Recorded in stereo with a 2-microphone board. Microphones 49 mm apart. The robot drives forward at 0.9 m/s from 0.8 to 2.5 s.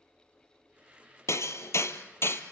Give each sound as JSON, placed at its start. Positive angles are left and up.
{"t": 1.3, "sound": "hammering", "side_deg": 75, "distance_m": 1.6}